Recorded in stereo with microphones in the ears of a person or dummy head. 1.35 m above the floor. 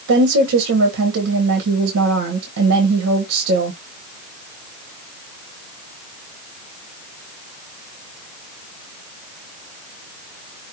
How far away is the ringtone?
No ringtone in this recording.